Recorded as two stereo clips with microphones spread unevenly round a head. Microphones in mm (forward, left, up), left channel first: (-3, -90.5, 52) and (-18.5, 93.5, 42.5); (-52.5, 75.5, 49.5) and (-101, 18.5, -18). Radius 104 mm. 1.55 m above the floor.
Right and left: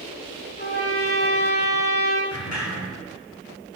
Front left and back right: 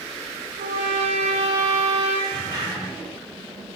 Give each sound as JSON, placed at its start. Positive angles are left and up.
{"t": 0.6, "sound": "a trumpet", "azimuth_deg": -100, "distance_m": 1.0}
{"t": 2.3, "sound": "a sliding door", "azimuth_deg": -40, "distance_m": 3.0}